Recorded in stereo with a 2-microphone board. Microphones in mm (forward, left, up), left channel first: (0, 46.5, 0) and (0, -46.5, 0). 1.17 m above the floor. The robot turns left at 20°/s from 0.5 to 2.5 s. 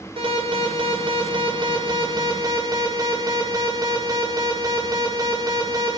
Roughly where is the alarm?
Right.